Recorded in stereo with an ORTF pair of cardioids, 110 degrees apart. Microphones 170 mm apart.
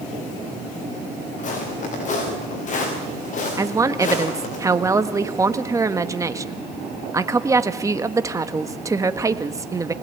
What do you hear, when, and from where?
1.4 s footsteps: 45° left, 7 m
3.6 s a woman speaking: 20° right, 1.4 m